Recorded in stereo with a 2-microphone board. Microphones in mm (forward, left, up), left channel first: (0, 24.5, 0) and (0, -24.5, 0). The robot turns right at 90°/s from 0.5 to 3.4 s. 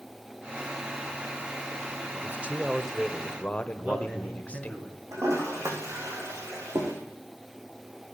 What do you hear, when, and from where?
2.1 s a man speaking: 70° right, 1.1 m; by 4.8 s 40° left, 1.1 m
3.8 s a man speaking: 25° right (ahead or behind), 4 m
5.1 s a toilet flushing: 80° right, 4.5 m